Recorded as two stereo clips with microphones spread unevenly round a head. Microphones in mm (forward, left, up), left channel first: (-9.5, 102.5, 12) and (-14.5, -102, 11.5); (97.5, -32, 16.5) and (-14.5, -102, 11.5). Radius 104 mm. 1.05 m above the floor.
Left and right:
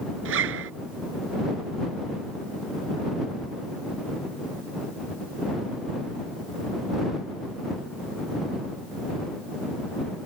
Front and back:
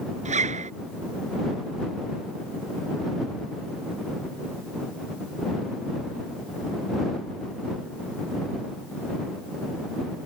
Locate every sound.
0.2 s a zipper: 120° right